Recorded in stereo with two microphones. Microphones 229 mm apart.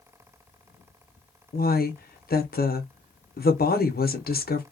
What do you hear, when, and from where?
1.5 s a woman speaking: 45° left (ahead or behind), 0.6 m